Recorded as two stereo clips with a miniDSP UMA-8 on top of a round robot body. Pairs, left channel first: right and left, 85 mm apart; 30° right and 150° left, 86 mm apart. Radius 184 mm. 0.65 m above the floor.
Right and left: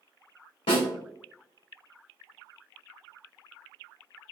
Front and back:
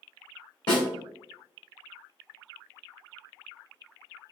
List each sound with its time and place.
0.7 s a snare drum: 70° right, 0.7 m